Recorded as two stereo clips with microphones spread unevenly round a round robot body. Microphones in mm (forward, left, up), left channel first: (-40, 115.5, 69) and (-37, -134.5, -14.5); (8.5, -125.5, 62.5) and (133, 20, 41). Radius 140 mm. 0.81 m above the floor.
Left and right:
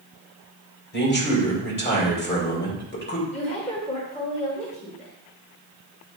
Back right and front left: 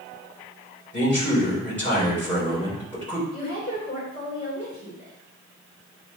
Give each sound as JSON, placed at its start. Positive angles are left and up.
{"t": 0.9, "sound": "a man speaking", "azimuth_deg": 145, "distance_m": 3.0}
{"t": 3.3, "sound": "a woman speaking", "azimuth_deg": 160, "distance_m": 2.5}